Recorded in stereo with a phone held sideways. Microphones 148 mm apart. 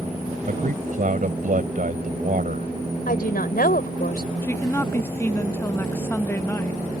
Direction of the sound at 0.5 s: 65° right (ahead or behind).